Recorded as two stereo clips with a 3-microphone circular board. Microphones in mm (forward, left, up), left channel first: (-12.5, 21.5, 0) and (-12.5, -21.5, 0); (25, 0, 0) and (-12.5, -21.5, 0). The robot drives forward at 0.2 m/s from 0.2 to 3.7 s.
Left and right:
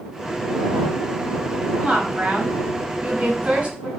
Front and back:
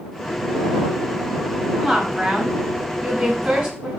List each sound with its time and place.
1.8 s a woman speaking: 60° right, 1.0 m; by 3.9 s 110° right, 1.0 m